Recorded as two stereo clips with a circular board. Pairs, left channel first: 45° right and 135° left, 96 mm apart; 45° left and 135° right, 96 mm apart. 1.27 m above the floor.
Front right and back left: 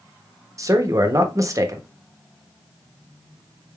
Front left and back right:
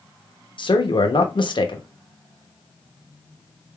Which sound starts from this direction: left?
A man speaking, at 0.6 s.